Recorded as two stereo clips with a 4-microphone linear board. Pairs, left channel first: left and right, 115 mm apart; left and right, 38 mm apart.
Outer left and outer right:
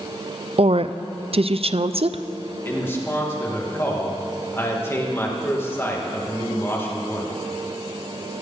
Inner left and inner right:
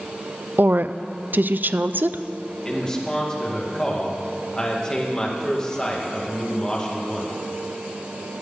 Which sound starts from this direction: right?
A woman speaking, at 0.6 s.